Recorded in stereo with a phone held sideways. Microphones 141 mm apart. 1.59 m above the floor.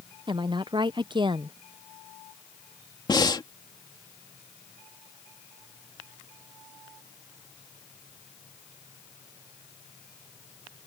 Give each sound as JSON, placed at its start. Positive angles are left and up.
{"t": 0.3, "sound": "a woman speaking", "side_deg": -35}
{"t": 3.1, "sound": "breathing", "side_deg": 30}